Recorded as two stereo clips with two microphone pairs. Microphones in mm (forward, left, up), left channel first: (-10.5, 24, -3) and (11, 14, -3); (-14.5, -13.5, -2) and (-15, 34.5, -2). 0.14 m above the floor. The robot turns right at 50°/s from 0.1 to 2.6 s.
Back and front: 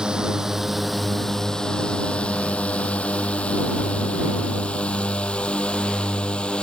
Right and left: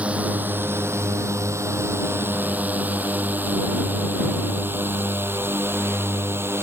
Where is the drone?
30° left; by 6.6 s 120° left.